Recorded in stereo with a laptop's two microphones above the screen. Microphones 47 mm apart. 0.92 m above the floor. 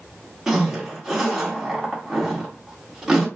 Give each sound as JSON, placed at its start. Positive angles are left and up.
{"t": 0.5, "sound": "a zipper", "side_deg": -10, "distance_m": 2.0}